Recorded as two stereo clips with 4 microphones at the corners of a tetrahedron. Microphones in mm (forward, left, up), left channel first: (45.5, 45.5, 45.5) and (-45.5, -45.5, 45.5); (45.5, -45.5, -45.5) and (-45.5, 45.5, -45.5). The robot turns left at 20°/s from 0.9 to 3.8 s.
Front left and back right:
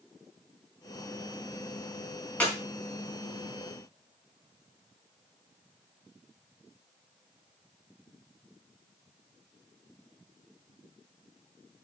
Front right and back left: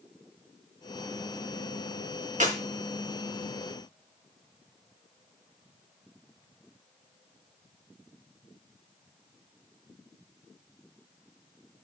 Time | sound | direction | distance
2.4 | a clap | 125° left | 4 m